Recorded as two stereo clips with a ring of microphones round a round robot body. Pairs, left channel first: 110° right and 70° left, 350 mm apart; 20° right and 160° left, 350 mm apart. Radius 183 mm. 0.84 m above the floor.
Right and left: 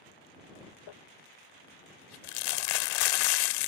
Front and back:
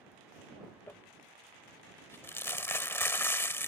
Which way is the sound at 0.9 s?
105° right.